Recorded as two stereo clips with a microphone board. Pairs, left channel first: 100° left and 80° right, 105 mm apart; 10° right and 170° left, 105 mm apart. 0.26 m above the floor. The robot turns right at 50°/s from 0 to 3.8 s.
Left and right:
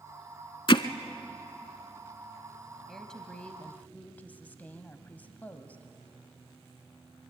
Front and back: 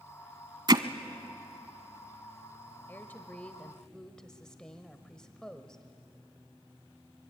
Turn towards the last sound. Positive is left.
turn(degrees=65)